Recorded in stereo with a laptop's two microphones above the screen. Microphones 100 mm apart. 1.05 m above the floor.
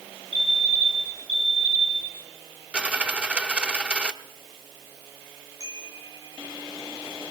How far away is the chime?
About 5 m.